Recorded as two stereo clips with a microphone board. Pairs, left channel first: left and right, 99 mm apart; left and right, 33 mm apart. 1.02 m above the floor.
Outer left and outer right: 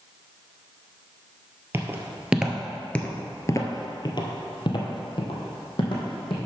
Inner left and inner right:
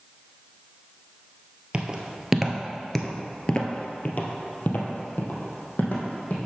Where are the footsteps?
25° right (ahead or behind), 1.3 m; by 6.4 s 60° left (ahead or behind), 3 m.